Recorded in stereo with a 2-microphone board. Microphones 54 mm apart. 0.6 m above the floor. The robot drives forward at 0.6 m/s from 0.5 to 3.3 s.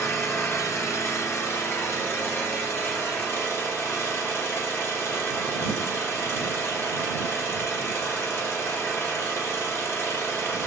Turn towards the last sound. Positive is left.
turn(degrees=35)  # may be behind; listen again after turning